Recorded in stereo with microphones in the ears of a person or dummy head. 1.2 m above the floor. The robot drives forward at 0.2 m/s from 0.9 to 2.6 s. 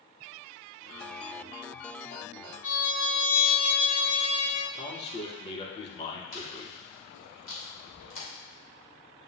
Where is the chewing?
70° left (ahead or behind), 2.5 m.